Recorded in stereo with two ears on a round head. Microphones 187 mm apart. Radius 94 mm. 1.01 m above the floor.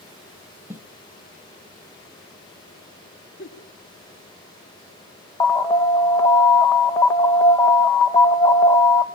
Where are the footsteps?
10° right (ahead or behind), 1.3 m.